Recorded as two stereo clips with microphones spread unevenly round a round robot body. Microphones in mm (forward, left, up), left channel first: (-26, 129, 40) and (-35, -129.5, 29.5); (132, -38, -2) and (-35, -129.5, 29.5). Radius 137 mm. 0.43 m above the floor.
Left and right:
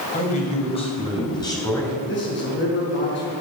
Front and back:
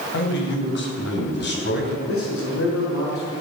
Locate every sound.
0.1 s a man speaking: 25° left, 3 m; by 2.0 s 5° left, 4 m
2.1 s a man speaking: 35° left, 5.5 m